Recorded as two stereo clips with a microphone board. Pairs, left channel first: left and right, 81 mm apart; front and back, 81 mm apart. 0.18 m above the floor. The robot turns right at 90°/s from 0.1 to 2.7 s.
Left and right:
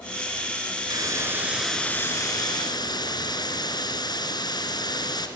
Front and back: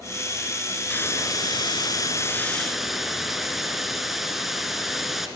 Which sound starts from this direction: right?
A hiss, at 0.9 s.